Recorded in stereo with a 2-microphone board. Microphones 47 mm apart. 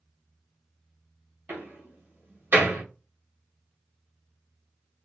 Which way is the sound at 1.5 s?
40° right (ahead or behind).